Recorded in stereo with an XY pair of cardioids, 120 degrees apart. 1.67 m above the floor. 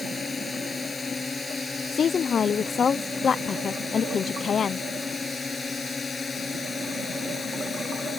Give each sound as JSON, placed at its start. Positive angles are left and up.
{"t": 0.0, "sound": "a drone", "azimuth_deg": 25}
{"t": 1.9, "sound": "a woman speaking", "azimuth_deg": 40}